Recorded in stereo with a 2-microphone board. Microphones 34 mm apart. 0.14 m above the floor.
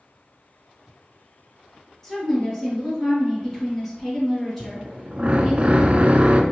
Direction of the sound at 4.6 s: 40° right (ahead or behind).